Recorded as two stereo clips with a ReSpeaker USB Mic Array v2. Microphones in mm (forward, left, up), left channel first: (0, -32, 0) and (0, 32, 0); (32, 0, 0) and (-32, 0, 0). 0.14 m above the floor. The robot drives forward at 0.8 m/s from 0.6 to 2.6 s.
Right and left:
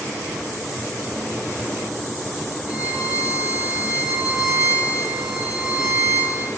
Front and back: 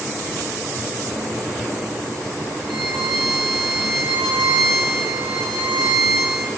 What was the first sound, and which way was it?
A violin, 85° right.